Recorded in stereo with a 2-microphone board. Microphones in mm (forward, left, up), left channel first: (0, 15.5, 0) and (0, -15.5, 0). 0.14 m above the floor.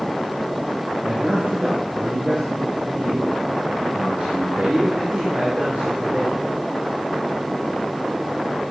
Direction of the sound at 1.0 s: 35° right (ahead or behind).